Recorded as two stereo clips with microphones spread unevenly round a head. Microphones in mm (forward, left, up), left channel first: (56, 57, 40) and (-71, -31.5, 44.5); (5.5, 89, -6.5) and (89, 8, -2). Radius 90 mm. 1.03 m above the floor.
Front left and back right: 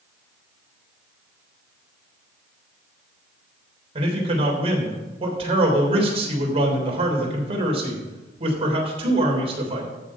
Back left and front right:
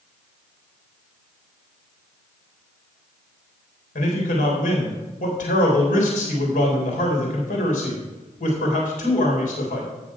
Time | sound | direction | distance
4.0 | a man speaking | 160° left | 3.5 m